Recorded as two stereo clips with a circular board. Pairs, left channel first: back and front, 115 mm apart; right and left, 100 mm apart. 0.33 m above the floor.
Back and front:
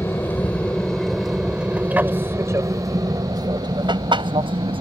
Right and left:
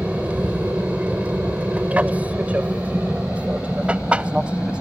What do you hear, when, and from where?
0.0 s an aircraft: 145° left; by 4.8 s 15° left